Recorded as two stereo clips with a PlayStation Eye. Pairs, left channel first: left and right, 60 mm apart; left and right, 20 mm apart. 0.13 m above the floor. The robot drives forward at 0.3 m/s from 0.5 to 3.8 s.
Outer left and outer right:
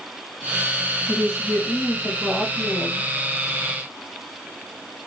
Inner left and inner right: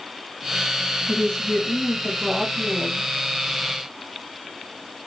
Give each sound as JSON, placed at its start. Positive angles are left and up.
{"t": 1.1, "sound": "a woman speaking", "side_deg": 45, "distance_m": 1.8}